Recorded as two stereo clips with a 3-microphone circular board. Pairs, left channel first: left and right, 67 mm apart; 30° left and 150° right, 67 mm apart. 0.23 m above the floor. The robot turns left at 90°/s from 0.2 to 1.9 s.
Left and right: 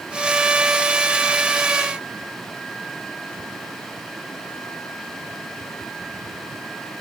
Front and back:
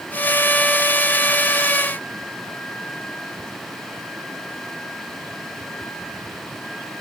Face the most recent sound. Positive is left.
No sound to turn to.